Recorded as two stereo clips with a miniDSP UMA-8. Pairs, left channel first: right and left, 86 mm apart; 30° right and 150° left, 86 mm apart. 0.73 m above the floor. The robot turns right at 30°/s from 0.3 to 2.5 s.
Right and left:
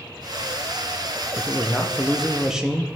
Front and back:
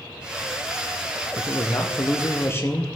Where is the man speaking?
25° right, 0.7 m; by 2.9 s 10° left, 0.7 m.